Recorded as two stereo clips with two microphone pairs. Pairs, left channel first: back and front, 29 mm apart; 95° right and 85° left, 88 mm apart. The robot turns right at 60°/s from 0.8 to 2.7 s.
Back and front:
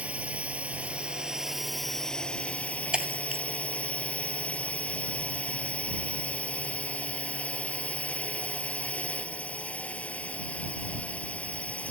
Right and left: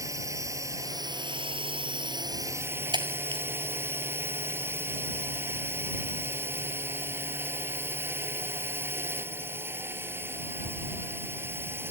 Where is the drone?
35° left; by 11.9 s 145° left.